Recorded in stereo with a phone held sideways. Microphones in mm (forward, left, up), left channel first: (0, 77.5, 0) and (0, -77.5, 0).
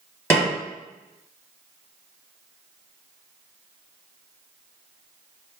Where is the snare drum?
15° left (ahead or behind), 2.0 m.